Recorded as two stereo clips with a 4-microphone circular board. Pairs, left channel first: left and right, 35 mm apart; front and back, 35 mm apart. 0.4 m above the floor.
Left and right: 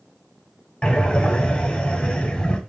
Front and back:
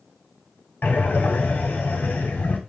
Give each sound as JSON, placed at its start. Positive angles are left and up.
{"t": 0.8, "sound": "breathing", "azimuth_deg": 35, "distance_m": 0.9}